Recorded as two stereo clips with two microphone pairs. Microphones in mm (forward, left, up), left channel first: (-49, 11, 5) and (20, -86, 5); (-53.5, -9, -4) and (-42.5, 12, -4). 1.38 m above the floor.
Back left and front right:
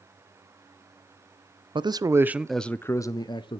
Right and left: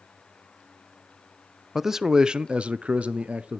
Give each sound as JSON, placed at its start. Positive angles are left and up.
{"t": 1.8, "sound": "a man speaking", "azimuth_deg": -15, "distance_m": 0.6}